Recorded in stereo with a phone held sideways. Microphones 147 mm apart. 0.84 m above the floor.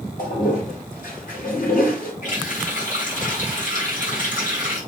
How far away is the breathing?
I don't hear breathing.